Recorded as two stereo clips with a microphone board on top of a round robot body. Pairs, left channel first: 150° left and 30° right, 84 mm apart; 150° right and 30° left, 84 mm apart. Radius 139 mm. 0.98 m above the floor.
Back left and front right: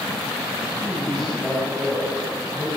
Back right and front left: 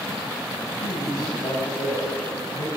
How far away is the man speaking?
About 10 m.